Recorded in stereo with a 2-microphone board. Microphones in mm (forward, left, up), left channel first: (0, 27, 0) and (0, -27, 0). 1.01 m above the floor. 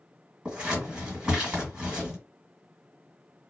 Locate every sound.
0.5 s scissors: 15° right (ahead or behind), 1.5 m